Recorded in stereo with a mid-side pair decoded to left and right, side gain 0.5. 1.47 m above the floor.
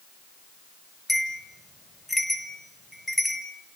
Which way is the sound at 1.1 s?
5° left.